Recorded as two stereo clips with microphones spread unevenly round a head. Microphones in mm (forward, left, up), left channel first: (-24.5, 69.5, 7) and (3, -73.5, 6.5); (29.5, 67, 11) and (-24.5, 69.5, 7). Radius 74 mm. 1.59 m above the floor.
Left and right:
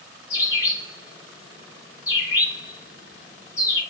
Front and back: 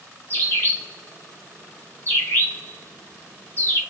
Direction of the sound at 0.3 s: 35° left.